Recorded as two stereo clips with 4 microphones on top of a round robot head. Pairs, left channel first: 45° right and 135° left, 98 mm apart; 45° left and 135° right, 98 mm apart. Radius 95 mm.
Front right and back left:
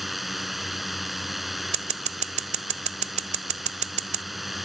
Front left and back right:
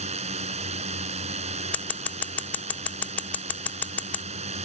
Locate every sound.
0.0 s a drone: 140° right
1.7 s scissors: 125° left